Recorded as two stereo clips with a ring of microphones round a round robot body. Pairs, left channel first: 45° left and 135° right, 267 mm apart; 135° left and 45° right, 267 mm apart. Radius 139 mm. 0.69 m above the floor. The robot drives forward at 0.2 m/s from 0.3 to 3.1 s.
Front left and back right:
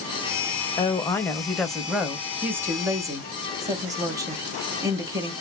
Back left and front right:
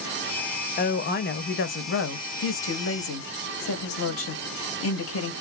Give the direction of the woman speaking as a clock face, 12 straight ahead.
8 o'clock.